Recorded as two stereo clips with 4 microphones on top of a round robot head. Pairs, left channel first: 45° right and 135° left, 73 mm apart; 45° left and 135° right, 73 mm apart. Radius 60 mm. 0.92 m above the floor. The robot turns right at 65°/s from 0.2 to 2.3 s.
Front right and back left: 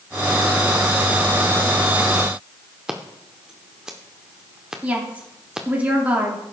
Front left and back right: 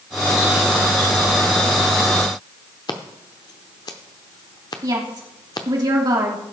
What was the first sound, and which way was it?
Scissors, 55° left.